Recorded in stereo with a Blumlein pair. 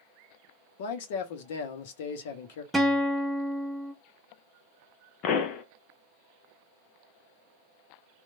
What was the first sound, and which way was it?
A man speaking, 50° left.